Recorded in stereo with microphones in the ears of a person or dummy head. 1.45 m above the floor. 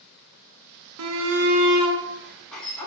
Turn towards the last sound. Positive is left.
turn(degrees=10)  # may be behind; listen again after turning